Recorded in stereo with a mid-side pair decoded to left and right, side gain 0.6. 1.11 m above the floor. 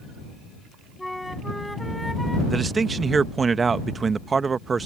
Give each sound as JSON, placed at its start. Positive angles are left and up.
{"t": 1.0, "sound": "a flute", "azimuth_deg": 5}
{"t": 2.5, "sound": "a man speaking", "azimuth_deg": -25}